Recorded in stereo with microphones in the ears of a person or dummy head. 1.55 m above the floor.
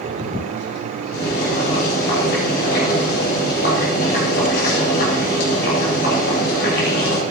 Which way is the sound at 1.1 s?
55° left (ahead or behind).